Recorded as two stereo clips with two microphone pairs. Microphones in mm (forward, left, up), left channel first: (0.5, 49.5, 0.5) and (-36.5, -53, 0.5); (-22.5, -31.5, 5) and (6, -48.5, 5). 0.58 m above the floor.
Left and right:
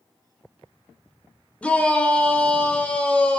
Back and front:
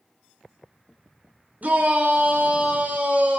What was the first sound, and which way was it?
A shout, 5° right.